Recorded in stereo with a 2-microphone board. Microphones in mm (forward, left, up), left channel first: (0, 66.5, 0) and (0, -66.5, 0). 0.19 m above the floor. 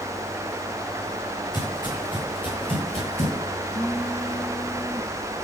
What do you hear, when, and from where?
1.5 s footsteps: 30° left (ahead or behind), 9.5 m; by 3.5 s 50° left (ahead or behind), 8 m
3.6 s a phone buzzing: 15° right (ahead or behind), 7 m